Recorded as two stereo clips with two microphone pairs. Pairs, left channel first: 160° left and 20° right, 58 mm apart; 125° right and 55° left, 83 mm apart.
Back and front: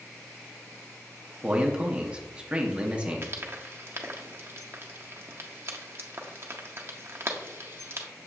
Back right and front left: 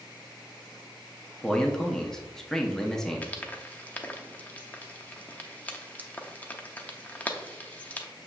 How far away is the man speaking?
About 0.6 m.